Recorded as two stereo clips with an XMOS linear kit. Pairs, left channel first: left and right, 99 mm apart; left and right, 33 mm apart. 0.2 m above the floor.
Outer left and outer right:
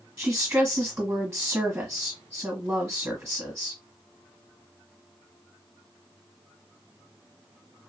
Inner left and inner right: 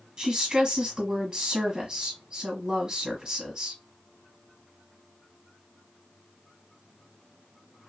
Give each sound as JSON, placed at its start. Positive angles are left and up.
{"t": 0.2, "sound": "a woman speaking", "side_deg": -10, "distance_m": 1.4}